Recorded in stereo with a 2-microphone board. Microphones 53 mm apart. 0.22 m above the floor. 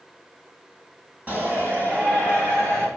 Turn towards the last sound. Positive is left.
turn(degrees=-40)  # may be behind; listen again after turning